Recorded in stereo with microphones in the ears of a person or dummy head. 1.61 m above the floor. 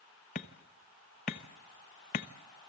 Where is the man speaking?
I don't hear a man speaking.